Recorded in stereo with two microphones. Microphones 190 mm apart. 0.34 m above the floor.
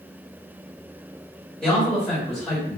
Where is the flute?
I don't hear a flute.